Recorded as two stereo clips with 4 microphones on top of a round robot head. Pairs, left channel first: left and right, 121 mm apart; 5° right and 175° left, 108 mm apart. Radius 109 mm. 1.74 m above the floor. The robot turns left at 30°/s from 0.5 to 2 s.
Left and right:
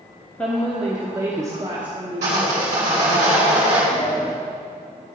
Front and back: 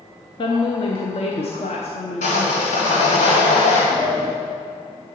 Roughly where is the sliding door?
Behind left.